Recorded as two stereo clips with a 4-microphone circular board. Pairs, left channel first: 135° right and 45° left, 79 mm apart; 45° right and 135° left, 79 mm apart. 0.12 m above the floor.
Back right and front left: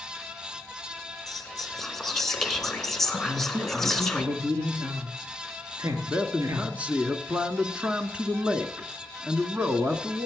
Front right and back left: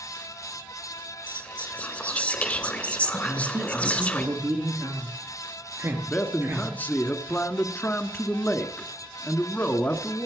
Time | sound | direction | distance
1.3 | whispering | 60° right | 1.5 m
3.2 | a man speaking | 80° left | 2 m
6.0 | a man speaking | 10° right | 1.1 m